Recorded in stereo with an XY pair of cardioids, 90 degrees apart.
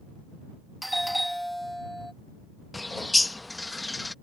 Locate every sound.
0.8 s a doorbell: straight ahead
2.7 s a bird: 15° left